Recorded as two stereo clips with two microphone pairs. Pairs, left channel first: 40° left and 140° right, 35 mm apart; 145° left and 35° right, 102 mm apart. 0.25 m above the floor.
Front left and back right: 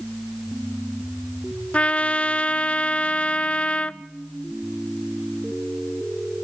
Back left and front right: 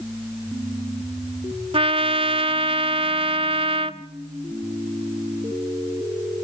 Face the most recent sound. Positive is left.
turn(degrees=-15)